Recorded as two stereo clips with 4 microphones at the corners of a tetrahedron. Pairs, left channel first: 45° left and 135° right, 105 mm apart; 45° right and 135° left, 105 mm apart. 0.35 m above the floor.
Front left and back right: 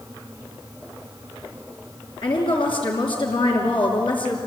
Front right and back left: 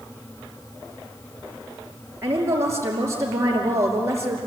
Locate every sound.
2.2 s a woman speaking: 75° left, 5.5 m